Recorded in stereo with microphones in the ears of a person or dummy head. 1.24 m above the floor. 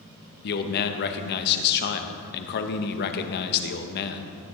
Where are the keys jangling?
No keys jangling in this recording.